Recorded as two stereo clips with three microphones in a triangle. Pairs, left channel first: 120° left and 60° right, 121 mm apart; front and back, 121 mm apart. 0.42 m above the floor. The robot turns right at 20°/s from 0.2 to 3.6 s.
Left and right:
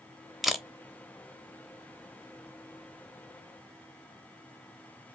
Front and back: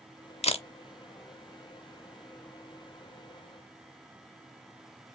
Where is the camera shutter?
30° left, 0.6 m; by 0.7 s 35° left, 0.6 m.